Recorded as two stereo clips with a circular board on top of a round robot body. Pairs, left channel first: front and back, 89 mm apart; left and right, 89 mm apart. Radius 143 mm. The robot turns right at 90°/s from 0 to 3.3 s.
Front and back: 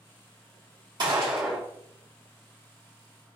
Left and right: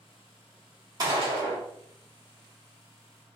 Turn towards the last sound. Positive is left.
turn(degrees=70)